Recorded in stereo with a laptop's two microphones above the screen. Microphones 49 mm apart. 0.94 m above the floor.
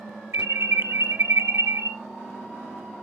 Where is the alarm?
65° right (ahead or behind), 0.7 m.